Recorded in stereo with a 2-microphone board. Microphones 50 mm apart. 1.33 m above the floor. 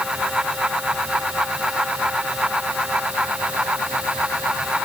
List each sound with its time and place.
Only background noise.